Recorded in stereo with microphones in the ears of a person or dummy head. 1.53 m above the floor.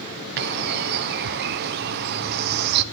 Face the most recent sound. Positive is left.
turn(degrees=-55)  # may be behind; listen again after turning